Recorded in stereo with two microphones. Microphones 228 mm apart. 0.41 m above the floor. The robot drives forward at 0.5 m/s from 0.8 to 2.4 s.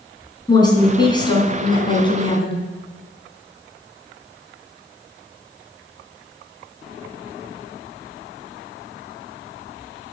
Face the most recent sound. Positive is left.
turn(degrees=20)  # may be behind; listen again after turning